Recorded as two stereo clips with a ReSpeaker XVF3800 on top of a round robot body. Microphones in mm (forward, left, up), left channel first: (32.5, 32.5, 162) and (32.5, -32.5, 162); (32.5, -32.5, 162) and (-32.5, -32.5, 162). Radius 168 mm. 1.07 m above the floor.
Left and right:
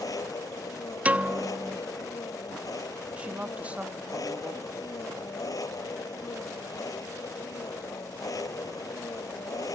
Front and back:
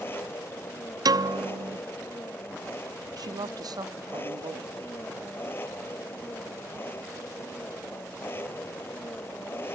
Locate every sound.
0.0 s an engine running: 60° left
1.1 s a piano: 160° right
3.2 s a woman speaking: 160° right